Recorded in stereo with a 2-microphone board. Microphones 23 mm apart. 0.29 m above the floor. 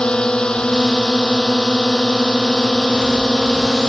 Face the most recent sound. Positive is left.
turn(degrees=35)  # may be behind; listen again after turning